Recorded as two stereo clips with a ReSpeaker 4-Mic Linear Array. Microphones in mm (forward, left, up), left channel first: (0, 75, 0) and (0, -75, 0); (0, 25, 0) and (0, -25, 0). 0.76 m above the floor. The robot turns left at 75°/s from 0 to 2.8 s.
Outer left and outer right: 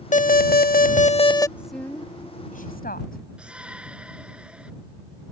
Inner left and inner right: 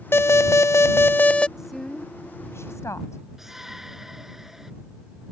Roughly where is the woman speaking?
Behind.